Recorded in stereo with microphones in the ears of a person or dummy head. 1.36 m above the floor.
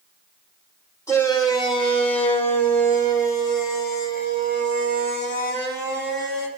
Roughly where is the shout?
Left.